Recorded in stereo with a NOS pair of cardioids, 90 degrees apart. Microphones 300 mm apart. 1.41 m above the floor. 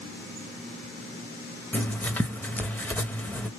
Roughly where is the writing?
Ahead.